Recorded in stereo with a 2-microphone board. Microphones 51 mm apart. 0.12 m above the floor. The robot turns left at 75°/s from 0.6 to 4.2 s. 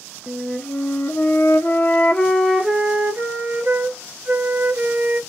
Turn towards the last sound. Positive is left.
turn(degrees=-125)